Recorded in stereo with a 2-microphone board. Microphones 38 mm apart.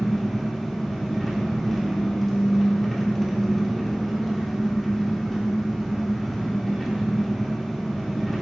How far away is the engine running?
About 1.4 m.